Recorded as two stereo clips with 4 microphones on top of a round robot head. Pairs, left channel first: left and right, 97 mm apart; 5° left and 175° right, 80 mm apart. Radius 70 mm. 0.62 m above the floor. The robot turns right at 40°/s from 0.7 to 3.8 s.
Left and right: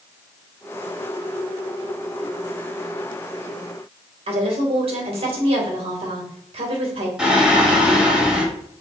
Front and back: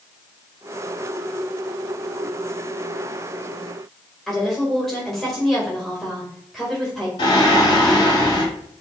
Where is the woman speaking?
80° right, 2.5 m.